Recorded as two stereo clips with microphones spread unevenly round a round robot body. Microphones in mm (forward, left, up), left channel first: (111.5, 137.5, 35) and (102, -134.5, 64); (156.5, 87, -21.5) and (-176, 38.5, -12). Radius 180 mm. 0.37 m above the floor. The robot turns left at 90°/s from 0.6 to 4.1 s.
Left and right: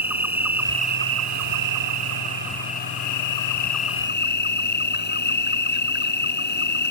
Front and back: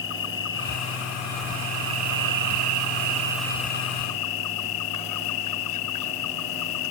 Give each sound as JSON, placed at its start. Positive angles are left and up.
{"t": 0.0, "sound": "an insect", "azimuth_deg": -10}